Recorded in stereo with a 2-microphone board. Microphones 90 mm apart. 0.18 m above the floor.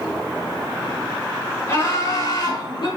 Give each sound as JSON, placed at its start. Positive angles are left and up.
{"t": 1.7, "sound": "laughter", "side_deg": 30, "distance_m": 3.5}